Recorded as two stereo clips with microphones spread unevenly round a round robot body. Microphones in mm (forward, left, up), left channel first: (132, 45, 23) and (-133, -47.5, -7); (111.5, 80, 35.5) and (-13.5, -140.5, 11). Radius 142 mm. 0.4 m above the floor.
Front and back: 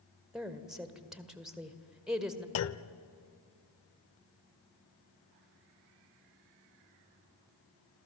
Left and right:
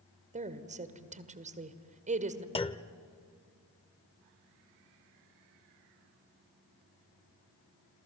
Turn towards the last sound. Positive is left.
turn(degrees=-10)